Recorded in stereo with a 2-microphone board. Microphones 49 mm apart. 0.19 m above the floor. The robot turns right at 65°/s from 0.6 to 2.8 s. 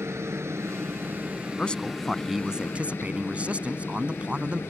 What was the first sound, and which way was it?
A helicopter, 85° right.